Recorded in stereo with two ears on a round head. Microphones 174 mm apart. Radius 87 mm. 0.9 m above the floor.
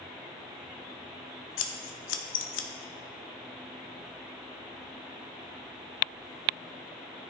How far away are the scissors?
About 0.7 m.